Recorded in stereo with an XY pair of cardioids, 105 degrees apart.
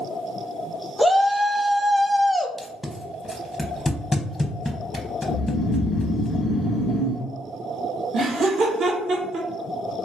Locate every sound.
1.0 s a shout: 5° left, 0.5 m
2.6 s tape being pulled: 20° left, 0.6 m
5.3 s snoring: 55° left, 0.5 m
8.1 s laughter: 55° right, 1.1 m